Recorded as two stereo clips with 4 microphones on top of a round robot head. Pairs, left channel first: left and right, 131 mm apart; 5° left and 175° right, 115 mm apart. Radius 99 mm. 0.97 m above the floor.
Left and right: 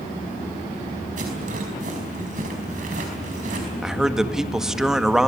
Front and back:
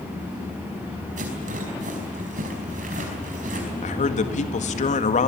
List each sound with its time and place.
1.2 s a rattle: 140° right, 5 m
3.8 s a man speaking: 5° right, 1.9 m